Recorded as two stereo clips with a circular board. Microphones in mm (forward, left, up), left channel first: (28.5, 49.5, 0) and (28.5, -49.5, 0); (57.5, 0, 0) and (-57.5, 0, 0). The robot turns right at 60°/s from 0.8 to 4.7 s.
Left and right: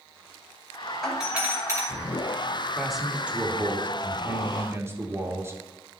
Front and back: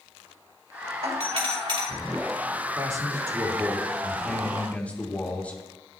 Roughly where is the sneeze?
No sneeze in this recording.